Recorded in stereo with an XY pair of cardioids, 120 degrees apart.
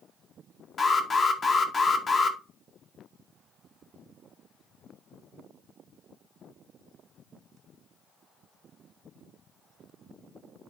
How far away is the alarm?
About 2 m.